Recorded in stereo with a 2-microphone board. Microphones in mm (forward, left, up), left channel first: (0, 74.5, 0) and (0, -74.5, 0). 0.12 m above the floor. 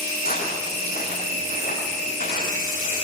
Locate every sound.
0.2 s footsteps: 75° left (ahead or behind), 7.5 m; by 3.0 s 65° left (ahead or behind), 10 m